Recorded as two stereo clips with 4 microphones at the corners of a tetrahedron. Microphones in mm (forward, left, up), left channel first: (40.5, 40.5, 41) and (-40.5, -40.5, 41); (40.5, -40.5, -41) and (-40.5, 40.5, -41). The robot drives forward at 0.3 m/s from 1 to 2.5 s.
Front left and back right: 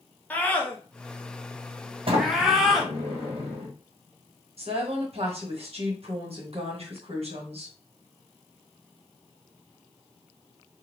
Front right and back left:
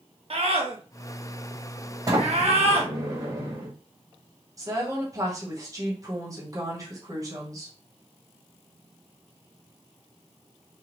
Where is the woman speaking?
165° right, 1.2 m.